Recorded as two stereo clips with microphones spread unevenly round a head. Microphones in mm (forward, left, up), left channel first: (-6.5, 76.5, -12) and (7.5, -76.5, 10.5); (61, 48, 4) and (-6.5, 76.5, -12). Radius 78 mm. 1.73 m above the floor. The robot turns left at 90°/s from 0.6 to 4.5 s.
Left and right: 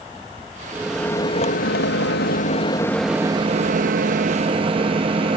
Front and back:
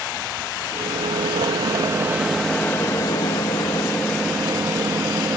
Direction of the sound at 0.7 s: 150° right.